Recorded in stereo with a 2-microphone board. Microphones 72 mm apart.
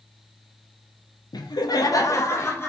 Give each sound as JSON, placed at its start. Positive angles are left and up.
{"t": 1.3, "sound": "laughter", "side_deg": 70, "distance_m": 0.6}